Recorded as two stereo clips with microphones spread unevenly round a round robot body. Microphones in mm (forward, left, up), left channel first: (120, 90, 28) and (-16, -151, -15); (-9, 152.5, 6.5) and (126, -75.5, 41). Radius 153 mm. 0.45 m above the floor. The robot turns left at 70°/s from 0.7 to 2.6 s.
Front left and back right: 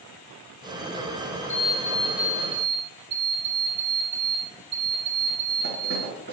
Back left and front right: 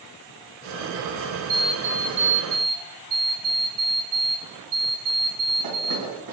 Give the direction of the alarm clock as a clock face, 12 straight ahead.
12 o'clock.